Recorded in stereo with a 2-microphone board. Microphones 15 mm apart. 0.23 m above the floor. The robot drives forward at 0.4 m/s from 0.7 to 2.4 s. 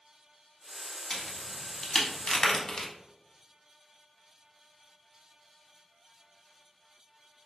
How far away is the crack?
About 0.9 m.